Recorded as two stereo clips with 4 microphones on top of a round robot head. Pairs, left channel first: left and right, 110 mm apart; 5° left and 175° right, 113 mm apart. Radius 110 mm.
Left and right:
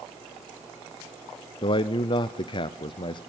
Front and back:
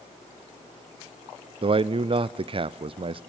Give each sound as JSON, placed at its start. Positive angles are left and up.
{"t": 1.6, "sound": "a man speaking", "azimuth_deg": 140, "distance_m": 0.7}